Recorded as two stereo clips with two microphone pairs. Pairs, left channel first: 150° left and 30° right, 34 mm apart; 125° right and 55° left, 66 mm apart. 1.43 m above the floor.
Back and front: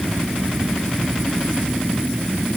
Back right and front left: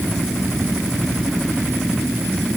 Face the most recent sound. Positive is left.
No sound to turn to.